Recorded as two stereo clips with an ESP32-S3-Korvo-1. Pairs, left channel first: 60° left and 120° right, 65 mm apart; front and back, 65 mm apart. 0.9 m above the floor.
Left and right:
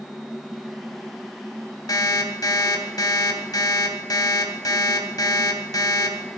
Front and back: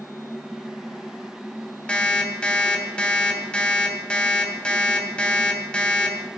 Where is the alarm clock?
75° left, 2 m.